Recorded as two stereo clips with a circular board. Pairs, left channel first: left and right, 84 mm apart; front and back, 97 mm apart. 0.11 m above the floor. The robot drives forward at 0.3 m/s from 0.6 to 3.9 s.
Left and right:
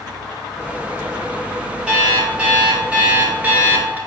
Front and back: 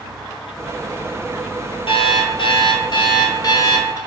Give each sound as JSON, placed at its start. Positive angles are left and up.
{"t": 1.9, "sound": "an alarm clock", "azimuth_deg": -15, "distance_m": 1.2}